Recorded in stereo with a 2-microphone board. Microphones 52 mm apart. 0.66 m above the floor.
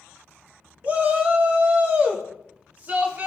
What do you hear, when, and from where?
0.8 s a shout: 35° right (ahead or behind), 1.4 m